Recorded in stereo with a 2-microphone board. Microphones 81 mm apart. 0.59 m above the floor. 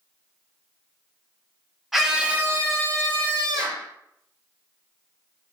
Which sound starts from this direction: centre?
A scream, at 1.9 s.